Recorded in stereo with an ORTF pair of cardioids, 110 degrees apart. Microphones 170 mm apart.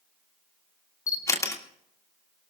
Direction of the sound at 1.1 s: 20° left.